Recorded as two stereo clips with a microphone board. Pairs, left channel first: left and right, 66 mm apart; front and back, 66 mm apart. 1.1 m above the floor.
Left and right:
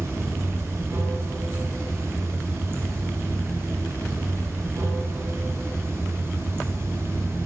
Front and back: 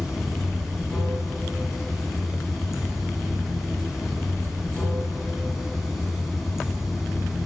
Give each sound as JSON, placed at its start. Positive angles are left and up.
{"t": 0.0, "sound": "running water", "azimuth_deg": -95, "distance_m": 1.3}